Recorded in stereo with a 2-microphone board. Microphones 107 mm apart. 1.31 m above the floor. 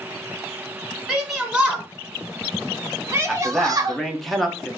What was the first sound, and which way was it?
A shout, 5° right (ahead or behind).